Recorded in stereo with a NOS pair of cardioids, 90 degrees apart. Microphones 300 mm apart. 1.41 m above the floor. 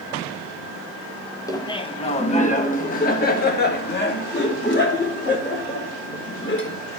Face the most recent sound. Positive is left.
turn(degrees=40)